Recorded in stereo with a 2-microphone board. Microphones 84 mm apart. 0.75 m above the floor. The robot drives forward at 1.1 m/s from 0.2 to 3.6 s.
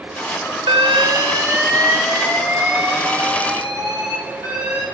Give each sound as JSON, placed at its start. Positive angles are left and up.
{"t": 0.7, "sound": "an alarm", "side_deg": -85, "distance_m": 0.6}